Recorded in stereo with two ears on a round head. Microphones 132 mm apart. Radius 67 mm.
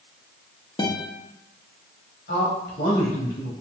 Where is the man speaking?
75° left (ahead or behind), 3.5 m.